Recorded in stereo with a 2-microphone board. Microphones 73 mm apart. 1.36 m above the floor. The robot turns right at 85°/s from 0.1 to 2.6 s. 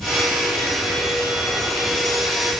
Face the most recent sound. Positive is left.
No sound to turn to.